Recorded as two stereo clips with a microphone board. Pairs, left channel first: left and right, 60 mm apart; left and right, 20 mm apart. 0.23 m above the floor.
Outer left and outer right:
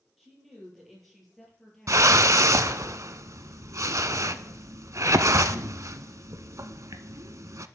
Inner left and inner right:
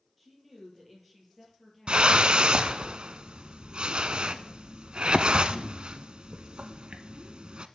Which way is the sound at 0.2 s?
5° right (ahead or behind).